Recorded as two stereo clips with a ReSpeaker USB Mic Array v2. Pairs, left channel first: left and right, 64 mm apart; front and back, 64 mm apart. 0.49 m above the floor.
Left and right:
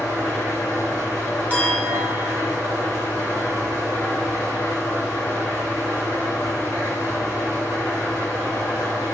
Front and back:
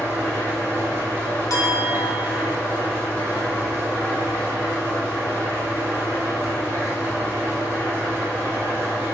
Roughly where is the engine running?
Behind left.